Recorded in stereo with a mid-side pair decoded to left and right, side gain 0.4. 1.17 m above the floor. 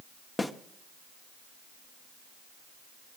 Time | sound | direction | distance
0.4 | a snare drum | 15° left | 1.4 m